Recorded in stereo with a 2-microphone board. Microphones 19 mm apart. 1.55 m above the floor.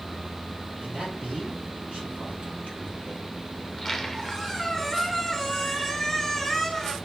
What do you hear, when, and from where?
0.8 s a man speaking: 70° right (ahead or behind), 4 m
3.6 s a squeak: 10° left (ahead or behind), 1.4 m